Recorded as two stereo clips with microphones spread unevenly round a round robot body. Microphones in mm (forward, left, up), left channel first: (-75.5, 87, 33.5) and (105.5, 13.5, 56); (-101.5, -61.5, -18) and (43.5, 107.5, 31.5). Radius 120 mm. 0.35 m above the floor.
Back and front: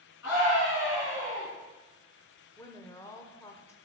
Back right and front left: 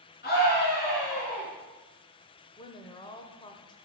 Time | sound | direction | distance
0.2 | a scream | 175° right | 3.5 m
2.6 | a woman speaking | 150° right | 0.9 m